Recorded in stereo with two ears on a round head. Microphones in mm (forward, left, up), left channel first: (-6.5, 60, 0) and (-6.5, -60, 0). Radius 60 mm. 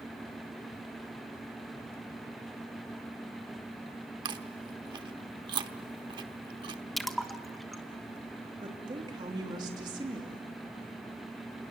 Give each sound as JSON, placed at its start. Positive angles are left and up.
{"t": 4.2, "sound": "chewing", "side_deg": -35, "distance_m": 1.1}
{"t": 7.0, "sound": "a splash", "side_deg": 0, "distance_m": 1.2}
{"t": 8.6, "sound": "a woman speaking", "side_deg": -35, "distance_m": 2.5}